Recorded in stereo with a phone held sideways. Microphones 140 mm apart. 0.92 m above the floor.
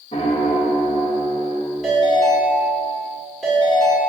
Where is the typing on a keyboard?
No typing on a keyboard in this recording.